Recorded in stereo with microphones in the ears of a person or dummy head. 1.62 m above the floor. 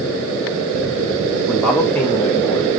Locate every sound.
1.5 s a man speaking: 5° left (ahead or behind), 1.4 m; by 2.7 s 15° left (ahead or behind), 2 m